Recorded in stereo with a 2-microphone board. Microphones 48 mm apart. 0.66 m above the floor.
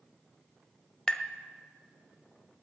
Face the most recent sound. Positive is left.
turn(degrees=15)  # may be behind; listen again after turning